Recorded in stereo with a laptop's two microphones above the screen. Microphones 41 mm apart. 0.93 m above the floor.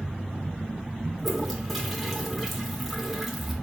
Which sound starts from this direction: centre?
A toilet flushing, at 1.2 s.